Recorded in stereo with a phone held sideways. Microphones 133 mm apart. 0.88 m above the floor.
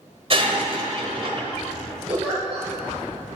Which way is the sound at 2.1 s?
45° right (ahead or behind).